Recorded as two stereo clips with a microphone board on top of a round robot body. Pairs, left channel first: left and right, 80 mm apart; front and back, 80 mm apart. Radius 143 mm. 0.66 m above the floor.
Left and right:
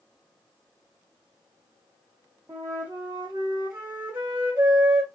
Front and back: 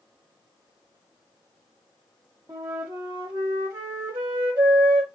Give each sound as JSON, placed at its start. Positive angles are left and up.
{"t": 2.5, "sound": "a flute", "azimuth_deg": -150, "distance_m": 0.5}